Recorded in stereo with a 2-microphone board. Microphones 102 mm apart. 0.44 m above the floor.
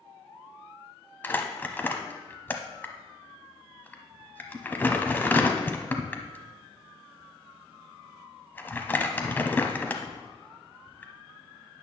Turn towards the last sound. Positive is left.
turn(degrees=20)  # may be behind; listen again after turning